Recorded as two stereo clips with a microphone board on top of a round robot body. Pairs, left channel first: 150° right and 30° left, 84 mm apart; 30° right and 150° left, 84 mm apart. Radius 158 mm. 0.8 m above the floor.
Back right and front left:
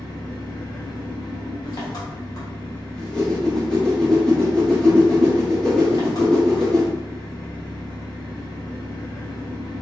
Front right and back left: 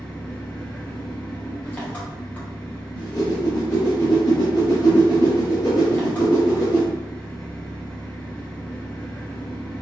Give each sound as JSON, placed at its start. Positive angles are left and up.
{"t": 0.0, "sound": "an engine running", "azimuth_deg": -105, "distance_m": 0.8}
{"t": 2.9, "sound": "a whoosh", "azimuth_deg": -70, "distance_m": 1.2}